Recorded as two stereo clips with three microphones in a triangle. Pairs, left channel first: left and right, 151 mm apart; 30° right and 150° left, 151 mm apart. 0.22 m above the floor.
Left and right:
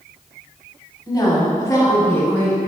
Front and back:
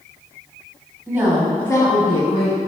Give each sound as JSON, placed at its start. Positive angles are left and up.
{"t": 1.1, "sound": "a woman speaking", "azimuth_deg": 105, "distance_m": 1.0}